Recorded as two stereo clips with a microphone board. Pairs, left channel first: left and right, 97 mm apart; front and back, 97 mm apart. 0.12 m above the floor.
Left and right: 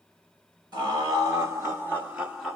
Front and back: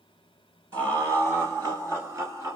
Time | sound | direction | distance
0.7 | laughter | 130° right | 2.5 m